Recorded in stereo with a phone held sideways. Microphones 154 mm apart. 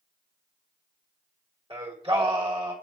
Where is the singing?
35° right (ahead or behind), 1.1 m.